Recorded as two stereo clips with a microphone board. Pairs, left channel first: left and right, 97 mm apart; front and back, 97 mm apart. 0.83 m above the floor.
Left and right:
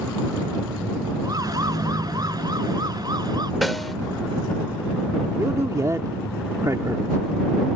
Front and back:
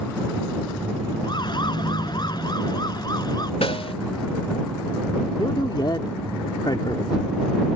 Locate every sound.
1.2 s a siren: 40° right; by 3.5 s 45° right
3.6 s a snare drum: straight ahead
5.4 s a man speaking: 35° right